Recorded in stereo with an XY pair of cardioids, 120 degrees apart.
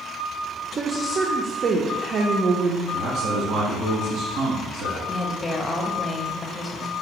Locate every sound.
0.8 s a woman speaking: 45° right, 0.5 m
2.9 s a man speaking: 70° right, 1.3 m
5.1 s a woman speaking: 20° left, 0.7 m